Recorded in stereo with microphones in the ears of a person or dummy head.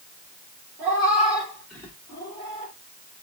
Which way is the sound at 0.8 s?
15° right (ahead or behind).